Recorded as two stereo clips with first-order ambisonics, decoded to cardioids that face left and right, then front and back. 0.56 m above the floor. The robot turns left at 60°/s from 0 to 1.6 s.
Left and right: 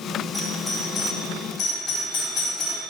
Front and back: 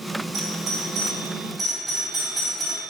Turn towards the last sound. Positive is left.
turn(degrees=110)